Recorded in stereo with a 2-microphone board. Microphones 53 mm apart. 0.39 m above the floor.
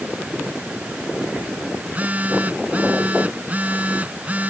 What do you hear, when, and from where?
1.8 s a phone buzzing: 30° right (ahead or behind)